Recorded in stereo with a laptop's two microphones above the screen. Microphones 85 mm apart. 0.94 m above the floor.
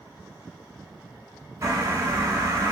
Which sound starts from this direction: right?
A bird, at 1.6 s.